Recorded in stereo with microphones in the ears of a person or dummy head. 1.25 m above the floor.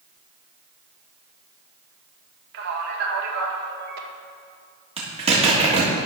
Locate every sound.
2.5 s a man speaking: 55° right (ahead or behind), 1.6 m
5.0 s a zipper: 25° right (ahead or behind), 1.8 m